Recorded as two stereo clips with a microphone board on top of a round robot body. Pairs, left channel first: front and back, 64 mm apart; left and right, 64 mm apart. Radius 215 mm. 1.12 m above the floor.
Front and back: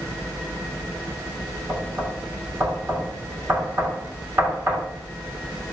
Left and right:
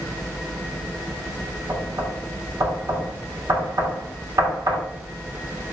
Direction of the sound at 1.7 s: 125° right.